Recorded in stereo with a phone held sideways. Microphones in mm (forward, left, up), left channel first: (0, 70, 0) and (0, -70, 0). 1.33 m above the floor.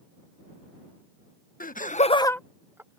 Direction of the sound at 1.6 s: 85° left.